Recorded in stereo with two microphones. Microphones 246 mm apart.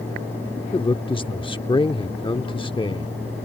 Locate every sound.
0.7 s a man speaking: 20° left (ahead or behind)